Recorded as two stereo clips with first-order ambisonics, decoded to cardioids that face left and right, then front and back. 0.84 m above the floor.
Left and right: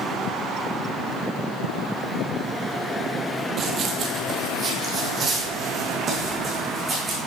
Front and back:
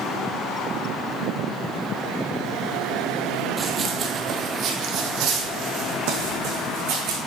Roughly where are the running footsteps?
Right.